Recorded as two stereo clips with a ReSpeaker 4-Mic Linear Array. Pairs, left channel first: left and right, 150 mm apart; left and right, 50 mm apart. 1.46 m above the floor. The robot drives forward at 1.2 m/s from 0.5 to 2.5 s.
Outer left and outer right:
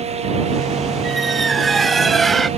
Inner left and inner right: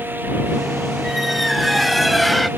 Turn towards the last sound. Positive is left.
turn(degrees=0)  # may be behind; listen again after turning